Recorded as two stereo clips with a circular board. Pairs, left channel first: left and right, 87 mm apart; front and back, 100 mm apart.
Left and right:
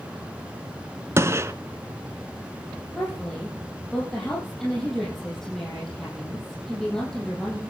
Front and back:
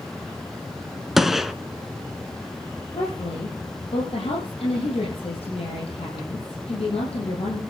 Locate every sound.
1.2 s a gunshot: 95° right, 0.8 m
2.9 s a woman speaking: 5° left, 5 m